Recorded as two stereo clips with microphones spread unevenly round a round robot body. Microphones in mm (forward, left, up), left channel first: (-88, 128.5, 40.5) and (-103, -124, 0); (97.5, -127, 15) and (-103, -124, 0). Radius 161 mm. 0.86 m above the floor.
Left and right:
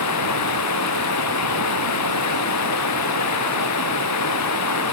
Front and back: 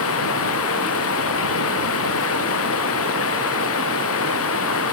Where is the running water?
45° left.